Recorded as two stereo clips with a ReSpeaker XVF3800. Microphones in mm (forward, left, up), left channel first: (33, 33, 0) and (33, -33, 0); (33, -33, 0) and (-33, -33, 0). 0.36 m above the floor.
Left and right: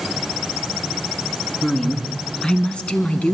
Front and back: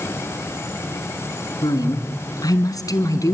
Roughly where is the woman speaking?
Ahead.